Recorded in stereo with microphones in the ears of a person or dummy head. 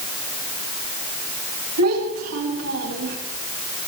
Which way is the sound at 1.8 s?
85° right.